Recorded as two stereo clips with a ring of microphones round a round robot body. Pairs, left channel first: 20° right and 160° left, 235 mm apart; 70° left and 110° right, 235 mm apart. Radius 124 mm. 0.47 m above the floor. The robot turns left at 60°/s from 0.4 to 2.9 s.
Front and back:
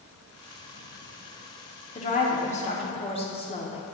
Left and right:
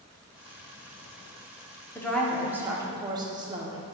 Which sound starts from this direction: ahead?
A woman speaking, at 1.9 s.